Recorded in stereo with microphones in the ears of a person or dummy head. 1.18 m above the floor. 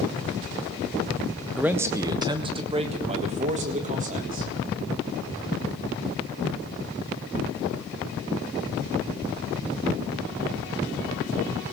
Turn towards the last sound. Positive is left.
turn(degrees=-40)  # may be behind; listen again after turning